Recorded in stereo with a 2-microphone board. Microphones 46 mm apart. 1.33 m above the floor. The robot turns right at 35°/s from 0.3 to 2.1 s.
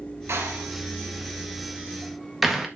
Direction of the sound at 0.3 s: 65° right (ahead or behind).